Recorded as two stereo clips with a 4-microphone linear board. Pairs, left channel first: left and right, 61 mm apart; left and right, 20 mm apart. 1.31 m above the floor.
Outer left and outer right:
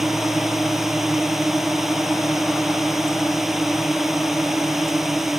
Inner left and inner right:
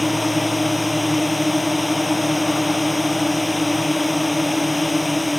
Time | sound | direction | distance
0.0 | a drone | 5° right (ahead or behind) | ?